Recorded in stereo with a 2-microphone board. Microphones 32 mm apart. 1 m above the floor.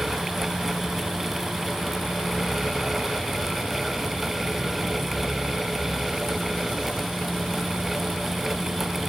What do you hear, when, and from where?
Only background noise.